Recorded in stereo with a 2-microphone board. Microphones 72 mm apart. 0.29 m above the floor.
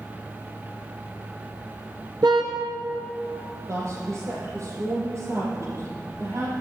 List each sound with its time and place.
2.2 s a car horn: 75° right (ahead or behind), 2.5 m
3.7 s a woman speaking: 40° right (ahead or behind), 7.5 m